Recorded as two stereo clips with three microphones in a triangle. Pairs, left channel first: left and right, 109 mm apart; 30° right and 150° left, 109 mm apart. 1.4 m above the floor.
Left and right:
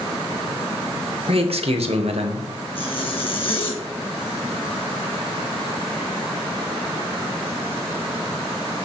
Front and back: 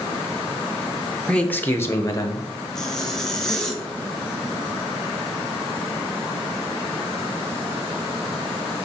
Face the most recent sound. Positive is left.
turn(degrees=55)